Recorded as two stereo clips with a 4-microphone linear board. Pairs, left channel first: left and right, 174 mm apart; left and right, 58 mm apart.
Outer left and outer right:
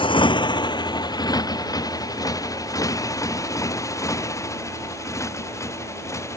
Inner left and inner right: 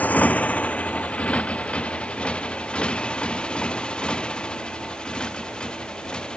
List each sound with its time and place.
0.0 s a motorcycle: 30° left (ahead or behind); by 6.4 s 15° left (ahead or behind)